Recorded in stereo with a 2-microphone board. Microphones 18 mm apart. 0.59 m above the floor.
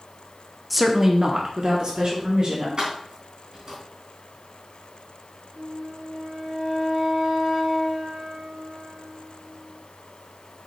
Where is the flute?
70° right (ahead or behind), 2.5 m.